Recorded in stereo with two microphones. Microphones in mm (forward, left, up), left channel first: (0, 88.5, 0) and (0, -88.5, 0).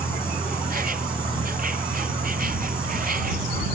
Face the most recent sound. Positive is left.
turn(degrees=-55)  # may be behind; listen again after turning